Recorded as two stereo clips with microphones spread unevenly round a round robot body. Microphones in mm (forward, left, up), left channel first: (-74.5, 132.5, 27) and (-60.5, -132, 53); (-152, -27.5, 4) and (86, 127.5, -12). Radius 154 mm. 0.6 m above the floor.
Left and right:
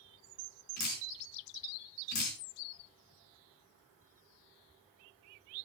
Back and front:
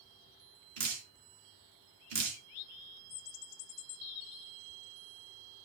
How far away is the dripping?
About 4 m.